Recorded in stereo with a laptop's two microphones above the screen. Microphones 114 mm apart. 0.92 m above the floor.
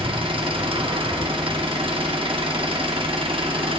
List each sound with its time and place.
0.0 s an engine running: 50° right (ahead or behind), 1.0 m